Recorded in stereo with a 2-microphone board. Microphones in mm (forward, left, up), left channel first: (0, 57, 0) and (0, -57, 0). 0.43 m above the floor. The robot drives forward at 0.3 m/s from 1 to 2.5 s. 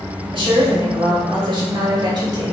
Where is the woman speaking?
45° right (ahead or behind), 1.4 m; by 2.5 s 40° right (ahead or behind), 1.7 m.